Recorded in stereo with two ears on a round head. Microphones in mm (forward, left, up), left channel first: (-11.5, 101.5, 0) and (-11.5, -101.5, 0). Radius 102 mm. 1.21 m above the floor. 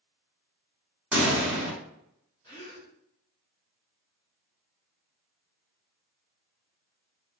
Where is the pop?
5° right (ahead or behind), 1.8 m.